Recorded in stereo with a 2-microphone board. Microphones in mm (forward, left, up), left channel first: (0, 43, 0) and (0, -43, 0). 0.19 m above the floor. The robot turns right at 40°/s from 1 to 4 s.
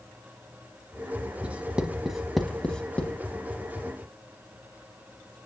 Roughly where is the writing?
Centre.